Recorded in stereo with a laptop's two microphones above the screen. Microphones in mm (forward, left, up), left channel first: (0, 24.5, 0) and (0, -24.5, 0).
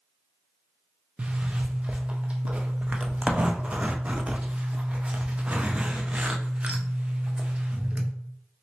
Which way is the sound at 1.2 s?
25° right (ahead or behind).